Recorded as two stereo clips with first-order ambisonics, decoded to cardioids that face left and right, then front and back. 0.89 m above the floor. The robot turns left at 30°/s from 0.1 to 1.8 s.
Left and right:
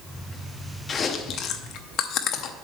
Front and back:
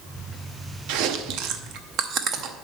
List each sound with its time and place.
0.9 s chewing: 160° left, 0.7 m; by 2.5 s 130° left, 0.7 m